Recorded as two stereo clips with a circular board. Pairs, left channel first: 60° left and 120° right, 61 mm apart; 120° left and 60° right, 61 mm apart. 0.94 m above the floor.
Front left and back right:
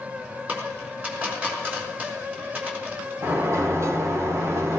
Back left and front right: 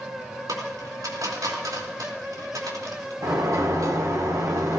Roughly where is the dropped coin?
Ahead right.